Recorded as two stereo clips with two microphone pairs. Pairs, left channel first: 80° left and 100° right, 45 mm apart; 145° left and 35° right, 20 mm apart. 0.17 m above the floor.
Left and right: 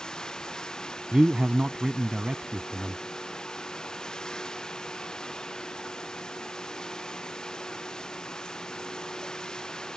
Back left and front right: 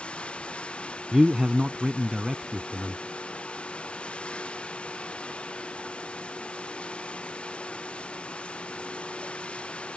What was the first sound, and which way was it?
Running water, 155° left.